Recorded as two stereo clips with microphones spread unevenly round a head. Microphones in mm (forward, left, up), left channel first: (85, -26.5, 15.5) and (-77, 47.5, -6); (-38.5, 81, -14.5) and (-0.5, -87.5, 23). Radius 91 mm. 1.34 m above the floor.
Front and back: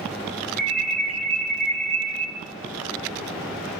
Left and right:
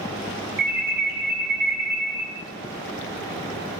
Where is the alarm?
110° right, 9 m.